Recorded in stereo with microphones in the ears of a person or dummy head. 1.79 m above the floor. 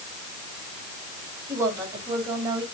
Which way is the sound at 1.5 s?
20° right (ahead or behind).